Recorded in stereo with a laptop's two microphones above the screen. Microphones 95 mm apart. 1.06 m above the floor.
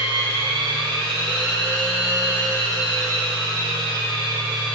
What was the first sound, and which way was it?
A machine running, 65° right (ahead or behind).